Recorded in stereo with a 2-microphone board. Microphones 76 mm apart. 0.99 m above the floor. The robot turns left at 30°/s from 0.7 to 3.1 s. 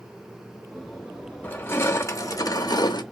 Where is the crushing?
155° left, 0.7 m; by 3.0 s 110° left, 0.7 m.